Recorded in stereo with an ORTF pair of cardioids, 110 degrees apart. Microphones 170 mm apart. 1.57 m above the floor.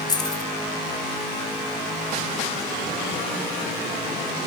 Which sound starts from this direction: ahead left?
Keys jangling, at 0.1 s.